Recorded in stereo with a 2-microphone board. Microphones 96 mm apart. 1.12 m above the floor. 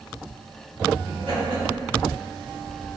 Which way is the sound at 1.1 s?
70° right (ahead or behind).